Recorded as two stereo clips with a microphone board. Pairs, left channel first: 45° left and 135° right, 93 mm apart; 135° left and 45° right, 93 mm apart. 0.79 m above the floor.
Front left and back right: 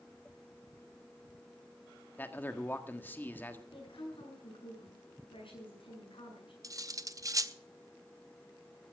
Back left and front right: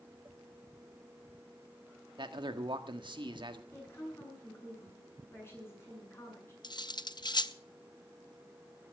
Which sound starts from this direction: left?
A woman speaking, at 3.7 s.